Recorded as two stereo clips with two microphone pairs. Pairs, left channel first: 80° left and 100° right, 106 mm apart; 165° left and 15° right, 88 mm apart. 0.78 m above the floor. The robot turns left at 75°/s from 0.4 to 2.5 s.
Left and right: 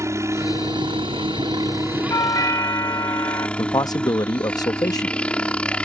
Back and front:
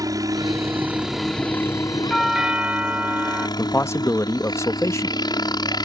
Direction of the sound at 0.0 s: 45° right.